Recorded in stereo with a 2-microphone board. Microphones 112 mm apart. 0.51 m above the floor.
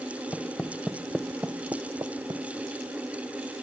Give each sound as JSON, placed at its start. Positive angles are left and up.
{"t": 0.3, "sound": "footsteps", "side_deg": 20}